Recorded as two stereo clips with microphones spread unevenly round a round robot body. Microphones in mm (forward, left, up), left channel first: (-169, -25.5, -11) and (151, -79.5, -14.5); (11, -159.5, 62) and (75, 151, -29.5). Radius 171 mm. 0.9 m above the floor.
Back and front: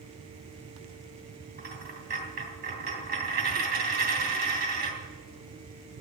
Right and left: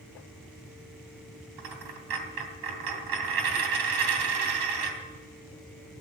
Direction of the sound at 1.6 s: 55° left.